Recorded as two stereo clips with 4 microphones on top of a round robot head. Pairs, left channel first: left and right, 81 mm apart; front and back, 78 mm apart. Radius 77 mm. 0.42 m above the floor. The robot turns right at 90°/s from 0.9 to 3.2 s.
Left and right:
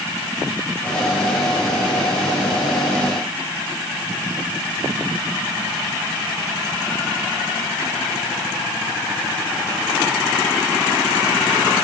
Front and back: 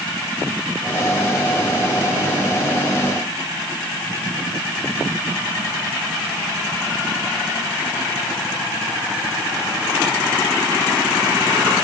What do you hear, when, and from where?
Only background noise.